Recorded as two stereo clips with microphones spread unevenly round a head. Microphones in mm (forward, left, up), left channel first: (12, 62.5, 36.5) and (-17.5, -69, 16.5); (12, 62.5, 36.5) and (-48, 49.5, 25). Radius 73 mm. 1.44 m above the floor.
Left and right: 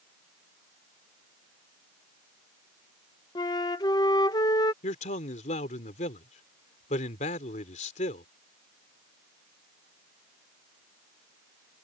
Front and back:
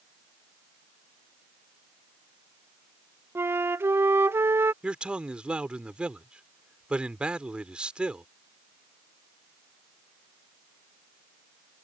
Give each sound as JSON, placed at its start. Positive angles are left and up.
{"t": 3.4, "sound": "a flute", "azimuth_deg": 140}
{"t": 4.8, "sound": "a man speaking", "azimuth_deg": 115}